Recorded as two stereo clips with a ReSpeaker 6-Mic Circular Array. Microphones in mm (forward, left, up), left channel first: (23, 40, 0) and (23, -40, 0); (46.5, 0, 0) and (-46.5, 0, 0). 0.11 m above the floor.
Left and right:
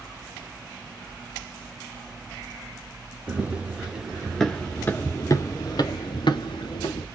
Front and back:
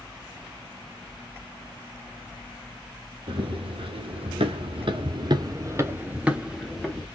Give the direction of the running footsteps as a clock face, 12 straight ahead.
5 o'clock.